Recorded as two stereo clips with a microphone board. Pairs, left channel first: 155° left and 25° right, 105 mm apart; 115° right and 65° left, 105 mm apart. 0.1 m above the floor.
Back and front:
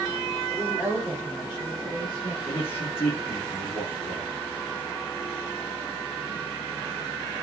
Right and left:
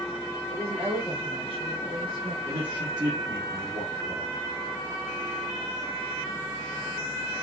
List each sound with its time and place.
0.5 s a woman speaking: 95° left, 3.5 m; by 2.4 s 60° left, 2.5 m
2.5 s a man speaking: 100° left, 2.5 m